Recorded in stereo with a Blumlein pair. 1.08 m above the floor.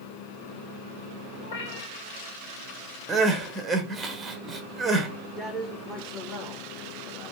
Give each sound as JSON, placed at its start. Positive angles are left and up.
{"t": 1.4, "sound": "a cat meowing", "azimuth_deg": 60, "distance_m": 1.0}
{"t": 3.1, "sound": "crying", "azimuth_deg": -15, "distance_m": 0.7}
{"t": 5.4, "sound": "a man speaking", "azimuth_deg": 5, "distance_m": 0.9}